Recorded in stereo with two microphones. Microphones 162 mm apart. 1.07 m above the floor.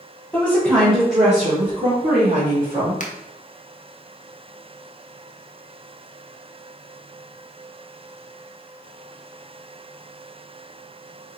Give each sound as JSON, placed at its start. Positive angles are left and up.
{"t": 0.3, "sound": "a woman speaking", "side_deg": 5, "distance_m": 1.0}
{"t": 3.0, "sound": "a finger snap", "side_deg": 55, "distance_m": 0.6}